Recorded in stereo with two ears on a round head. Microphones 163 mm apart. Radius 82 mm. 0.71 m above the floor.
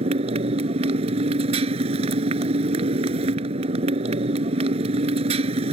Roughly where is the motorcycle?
Right.